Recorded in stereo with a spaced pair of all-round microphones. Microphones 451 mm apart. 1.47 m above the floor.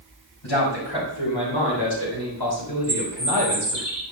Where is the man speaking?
80° left, 5 m; by 3.8 s 60° left (ahead or behind), 4 m.